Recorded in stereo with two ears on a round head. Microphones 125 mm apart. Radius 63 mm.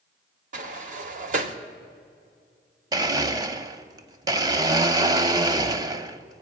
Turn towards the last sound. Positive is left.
turn(degrees=-25)  # may be behind; listen again after turning